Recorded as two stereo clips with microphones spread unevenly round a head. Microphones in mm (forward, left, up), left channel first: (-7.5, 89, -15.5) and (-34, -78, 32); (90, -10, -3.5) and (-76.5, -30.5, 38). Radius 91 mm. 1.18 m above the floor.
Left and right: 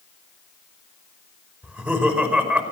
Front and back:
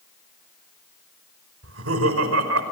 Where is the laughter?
Straight behind, 5 m.